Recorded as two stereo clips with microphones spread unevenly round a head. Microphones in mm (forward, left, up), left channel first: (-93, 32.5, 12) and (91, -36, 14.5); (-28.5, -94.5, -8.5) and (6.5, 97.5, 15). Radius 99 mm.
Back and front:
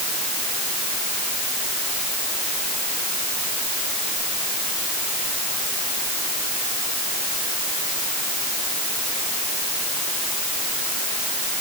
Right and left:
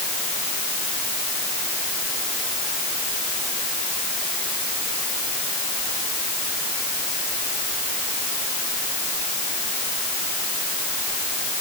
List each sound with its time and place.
Only background noise.